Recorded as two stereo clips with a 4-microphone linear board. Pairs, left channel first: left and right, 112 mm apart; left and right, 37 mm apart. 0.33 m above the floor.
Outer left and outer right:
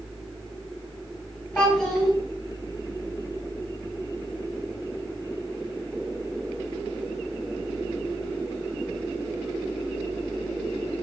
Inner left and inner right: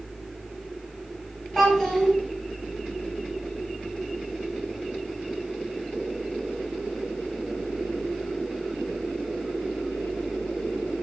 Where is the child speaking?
15° left (ahead or behind), 1.7 m.